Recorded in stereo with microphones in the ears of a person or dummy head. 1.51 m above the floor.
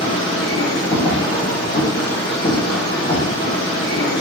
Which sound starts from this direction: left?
A machine running, at 0.0 s.